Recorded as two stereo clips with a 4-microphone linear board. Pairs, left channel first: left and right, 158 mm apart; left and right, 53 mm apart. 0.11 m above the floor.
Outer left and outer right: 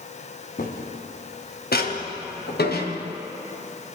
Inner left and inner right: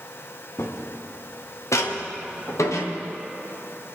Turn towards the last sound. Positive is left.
turn(degrees=85)